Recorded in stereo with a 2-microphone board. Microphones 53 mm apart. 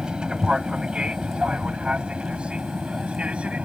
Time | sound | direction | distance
0.0 | an aircraft | 20° right (ahead or behind) | ?